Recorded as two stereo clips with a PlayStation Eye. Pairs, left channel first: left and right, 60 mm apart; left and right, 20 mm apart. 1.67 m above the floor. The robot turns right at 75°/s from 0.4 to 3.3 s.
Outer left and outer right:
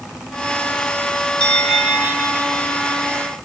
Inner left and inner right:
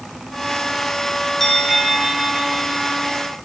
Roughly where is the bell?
Behind.